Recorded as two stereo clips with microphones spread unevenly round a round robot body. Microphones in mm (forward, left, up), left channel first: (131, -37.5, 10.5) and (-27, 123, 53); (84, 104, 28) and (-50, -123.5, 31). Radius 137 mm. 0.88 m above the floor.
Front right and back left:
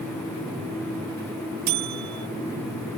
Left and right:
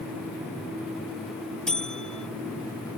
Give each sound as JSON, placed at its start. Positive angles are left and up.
{"t": 1.7, "sound": "a buzzer", "azimuth_deg": 150}